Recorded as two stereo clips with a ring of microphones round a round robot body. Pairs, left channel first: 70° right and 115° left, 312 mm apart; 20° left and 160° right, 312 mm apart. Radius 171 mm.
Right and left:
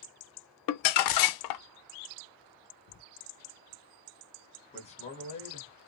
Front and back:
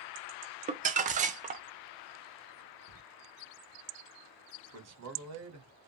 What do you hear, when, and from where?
0.7 s crumpling: 90° right, 0.6 m
2.9 s writing: 110° right, 0.8 m
4.7 s a man speaking: 135° right, 2.0 m